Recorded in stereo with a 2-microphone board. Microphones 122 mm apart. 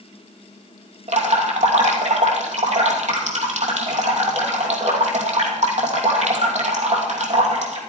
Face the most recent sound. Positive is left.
turn(degrees=-70)  # may be behind; listen again after turning